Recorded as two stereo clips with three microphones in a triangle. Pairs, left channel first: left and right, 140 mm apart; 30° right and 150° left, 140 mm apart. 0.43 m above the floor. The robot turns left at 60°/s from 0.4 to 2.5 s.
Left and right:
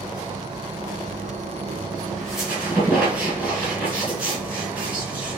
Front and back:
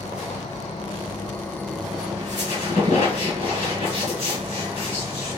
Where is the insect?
35° right, 1.1 m; by 5.4 s 160° right, 1.1 m.